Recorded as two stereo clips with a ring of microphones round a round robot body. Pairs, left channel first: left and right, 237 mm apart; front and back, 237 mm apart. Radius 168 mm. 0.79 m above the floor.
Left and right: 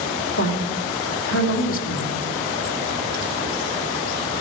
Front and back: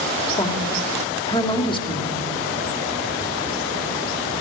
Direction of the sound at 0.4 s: 70° left.